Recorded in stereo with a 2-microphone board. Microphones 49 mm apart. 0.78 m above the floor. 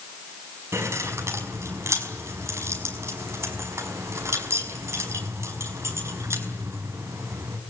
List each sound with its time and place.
0.7 s keys jangling: 65° right (ahead or behind), 5.5 m